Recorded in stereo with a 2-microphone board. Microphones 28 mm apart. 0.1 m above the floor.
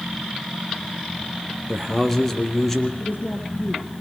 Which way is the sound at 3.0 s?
65° left (ahead or behind).